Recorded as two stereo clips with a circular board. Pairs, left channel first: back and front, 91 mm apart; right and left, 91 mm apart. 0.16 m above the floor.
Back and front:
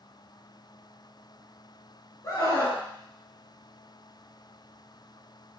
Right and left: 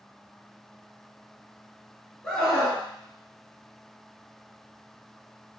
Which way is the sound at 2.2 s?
165° right.